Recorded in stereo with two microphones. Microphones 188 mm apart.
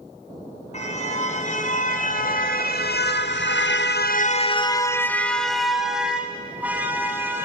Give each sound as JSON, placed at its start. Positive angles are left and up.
{"t": 0.7, "sound": "a car horn", "side_deg": 40, "distance_m": 2.5}